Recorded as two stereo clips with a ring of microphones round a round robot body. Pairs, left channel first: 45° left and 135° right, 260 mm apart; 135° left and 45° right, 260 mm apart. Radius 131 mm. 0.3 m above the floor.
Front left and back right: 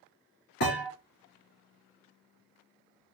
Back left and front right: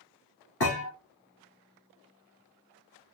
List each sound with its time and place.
0.6 s a thud: 95° left, 2.5 m